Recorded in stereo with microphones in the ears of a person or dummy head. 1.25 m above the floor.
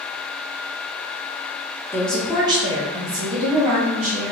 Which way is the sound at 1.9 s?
10° left (ahead or behind).